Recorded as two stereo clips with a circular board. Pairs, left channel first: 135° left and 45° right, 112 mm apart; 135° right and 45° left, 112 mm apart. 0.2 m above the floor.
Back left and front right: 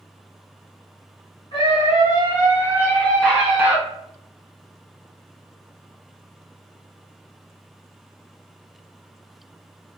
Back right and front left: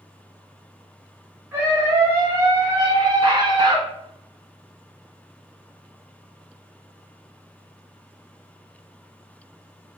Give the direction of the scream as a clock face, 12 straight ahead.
8 o'clock.